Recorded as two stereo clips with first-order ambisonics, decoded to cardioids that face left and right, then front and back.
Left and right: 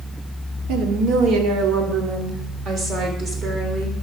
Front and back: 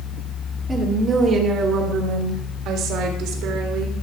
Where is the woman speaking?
105° right, 1.3 m; by 4.0 s 155° right, 2.5 m.